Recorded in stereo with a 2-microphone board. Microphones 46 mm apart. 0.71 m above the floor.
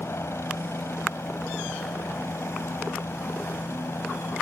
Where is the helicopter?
75° left (ahead or behind).